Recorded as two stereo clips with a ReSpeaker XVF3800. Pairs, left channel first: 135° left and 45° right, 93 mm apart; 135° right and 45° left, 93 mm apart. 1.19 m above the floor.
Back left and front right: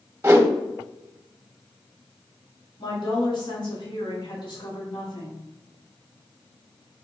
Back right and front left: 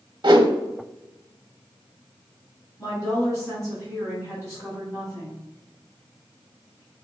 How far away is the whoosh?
About 0.7 m.